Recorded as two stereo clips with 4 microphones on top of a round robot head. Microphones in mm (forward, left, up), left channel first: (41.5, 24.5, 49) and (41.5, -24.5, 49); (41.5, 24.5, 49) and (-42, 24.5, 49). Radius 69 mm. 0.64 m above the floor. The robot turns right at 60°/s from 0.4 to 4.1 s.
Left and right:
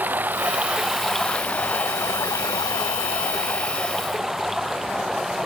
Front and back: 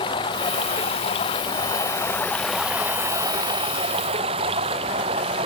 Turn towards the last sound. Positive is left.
turn(degrees=-175)